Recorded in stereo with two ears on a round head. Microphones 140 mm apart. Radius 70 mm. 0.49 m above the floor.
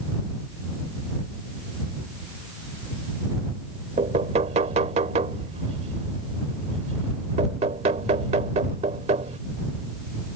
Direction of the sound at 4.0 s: 40° right (ahead or behind).